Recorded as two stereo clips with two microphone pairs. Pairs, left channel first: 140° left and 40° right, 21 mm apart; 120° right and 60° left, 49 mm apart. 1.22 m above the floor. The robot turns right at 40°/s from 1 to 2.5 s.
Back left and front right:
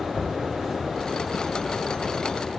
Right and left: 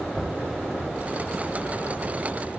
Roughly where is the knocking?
Behind left.